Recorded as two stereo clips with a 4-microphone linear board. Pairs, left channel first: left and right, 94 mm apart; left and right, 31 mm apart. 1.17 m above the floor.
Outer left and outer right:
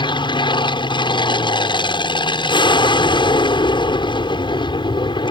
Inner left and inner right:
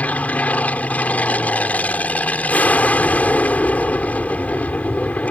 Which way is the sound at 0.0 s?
60° left (ahead or behind).